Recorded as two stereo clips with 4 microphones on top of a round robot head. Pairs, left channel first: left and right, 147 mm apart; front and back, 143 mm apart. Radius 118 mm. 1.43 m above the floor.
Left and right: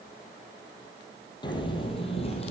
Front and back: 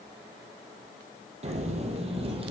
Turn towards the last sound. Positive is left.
turn(degrees=135)